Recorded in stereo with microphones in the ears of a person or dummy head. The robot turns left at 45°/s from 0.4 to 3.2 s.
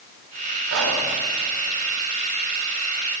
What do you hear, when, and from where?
0.7 s whispering: 75° right (ahead or behind), 4.5 m; by 1.0 s 60° right (ahead or behind), 4.5 m